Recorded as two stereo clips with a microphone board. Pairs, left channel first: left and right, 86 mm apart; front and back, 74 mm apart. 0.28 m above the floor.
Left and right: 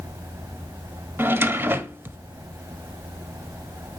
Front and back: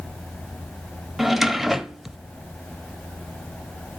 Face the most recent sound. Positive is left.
turn(degrees=-95)